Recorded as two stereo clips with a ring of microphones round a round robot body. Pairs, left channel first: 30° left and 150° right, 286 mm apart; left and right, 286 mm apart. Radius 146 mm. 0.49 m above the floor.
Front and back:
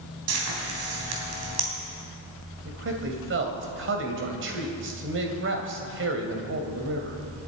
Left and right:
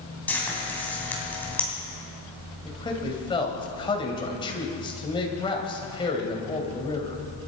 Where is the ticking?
No ticking in this recording.